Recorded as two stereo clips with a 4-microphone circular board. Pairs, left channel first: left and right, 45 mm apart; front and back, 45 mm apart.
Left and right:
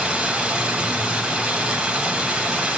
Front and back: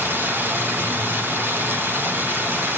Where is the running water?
155° right, 1.7 m.